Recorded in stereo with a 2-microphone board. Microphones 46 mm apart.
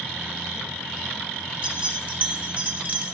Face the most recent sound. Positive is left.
turn(degrees=-30)  # may be behind; listen again after turning